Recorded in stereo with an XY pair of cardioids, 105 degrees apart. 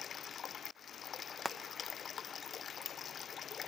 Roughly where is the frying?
Ahead.